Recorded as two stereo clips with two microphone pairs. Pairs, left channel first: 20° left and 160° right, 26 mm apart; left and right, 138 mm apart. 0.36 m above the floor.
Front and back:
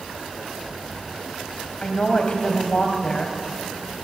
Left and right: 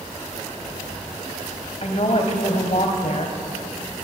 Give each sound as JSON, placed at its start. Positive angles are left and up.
{"t": 1.8, "sound": "a woman speaking", "azimuth_deg": 65, "distance_m": 1.9}